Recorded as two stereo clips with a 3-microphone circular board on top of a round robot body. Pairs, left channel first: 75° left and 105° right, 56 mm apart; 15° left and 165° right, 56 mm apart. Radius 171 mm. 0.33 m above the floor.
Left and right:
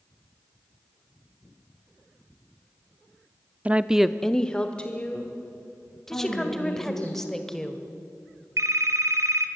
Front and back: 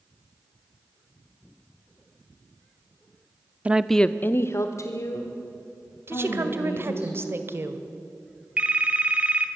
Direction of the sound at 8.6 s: 100° right.